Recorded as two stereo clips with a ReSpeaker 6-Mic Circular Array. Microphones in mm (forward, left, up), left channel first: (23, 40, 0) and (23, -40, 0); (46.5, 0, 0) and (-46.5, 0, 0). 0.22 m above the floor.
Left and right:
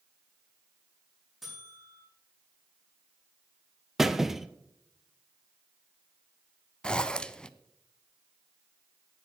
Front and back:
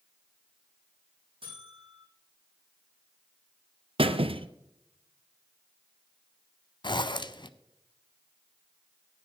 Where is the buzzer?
175° right, 7 m.